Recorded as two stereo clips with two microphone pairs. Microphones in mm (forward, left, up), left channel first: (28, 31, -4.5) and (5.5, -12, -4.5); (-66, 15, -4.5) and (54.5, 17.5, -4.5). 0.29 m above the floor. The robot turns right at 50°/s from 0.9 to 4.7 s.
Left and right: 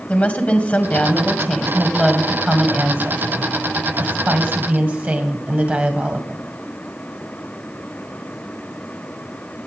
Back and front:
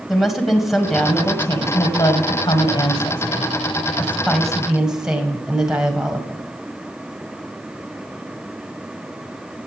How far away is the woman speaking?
About 1.7 m.